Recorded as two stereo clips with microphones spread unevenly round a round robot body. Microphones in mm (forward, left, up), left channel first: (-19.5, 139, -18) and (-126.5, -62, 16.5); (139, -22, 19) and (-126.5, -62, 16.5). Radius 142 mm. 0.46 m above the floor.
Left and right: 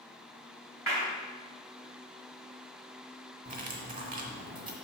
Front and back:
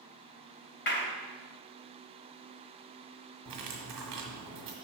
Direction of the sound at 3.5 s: 175° right.